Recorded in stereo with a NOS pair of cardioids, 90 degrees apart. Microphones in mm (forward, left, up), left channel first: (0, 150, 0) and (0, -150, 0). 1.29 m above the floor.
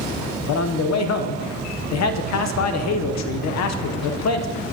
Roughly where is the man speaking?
Ahead left.